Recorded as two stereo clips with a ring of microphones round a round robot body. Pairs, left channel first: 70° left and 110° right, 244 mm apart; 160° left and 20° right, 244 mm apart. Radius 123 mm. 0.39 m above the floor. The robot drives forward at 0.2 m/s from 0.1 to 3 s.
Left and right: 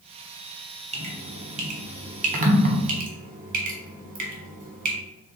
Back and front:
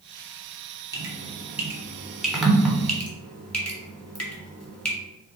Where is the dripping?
85° right, 1.3 m; by 5.0 s 120° right, 1.3 m.